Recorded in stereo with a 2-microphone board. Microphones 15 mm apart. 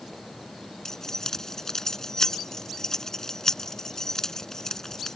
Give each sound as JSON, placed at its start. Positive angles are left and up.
{"t": 0.8, "sound": "keys jangling", "side_deg": 30}